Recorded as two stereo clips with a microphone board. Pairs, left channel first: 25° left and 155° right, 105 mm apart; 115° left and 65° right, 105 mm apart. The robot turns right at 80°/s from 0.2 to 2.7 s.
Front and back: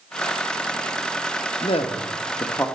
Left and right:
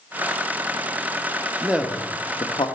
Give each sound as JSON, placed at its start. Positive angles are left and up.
{"t": 1.6, "sound": "a man speaking", "azimuth_deg": 5, "distance_m": 0.8}